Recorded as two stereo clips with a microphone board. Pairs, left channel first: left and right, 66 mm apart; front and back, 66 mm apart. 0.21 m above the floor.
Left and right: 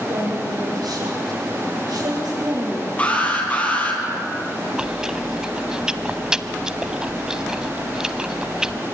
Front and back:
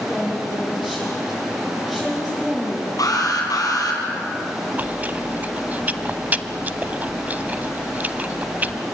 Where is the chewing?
155° right, 0.7 m.